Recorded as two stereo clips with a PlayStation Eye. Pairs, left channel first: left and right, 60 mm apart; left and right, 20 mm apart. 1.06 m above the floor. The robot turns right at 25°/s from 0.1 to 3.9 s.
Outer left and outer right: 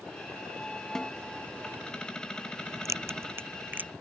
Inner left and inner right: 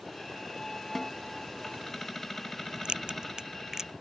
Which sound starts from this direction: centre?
A snare drum, at 0.9 s.